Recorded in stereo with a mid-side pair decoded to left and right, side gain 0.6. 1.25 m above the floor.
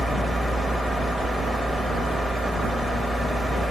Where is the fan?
Straight ahead, 1.1 m.